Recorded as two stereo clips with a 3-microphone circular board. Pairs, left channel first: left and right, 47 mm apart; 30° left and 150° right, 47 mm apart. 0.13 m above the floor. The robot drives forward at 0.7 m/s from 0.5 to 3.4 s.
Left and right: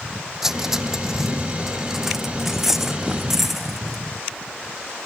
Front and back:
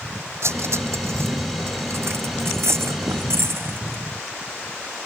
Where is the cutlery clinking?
170° right; by 4.0 s 175° right.